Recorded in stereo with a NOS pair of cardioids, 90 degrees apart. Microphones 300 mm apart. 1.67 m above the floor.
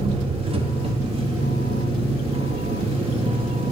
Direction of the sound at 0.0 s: 20° right.